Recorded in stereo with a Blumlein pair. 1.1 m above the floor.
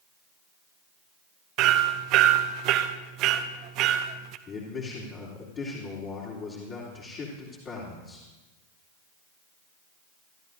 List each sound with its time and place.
1.6 s hammering: 40° right, 0.8 m
4.5 s a man speaking: 30° left, 3 m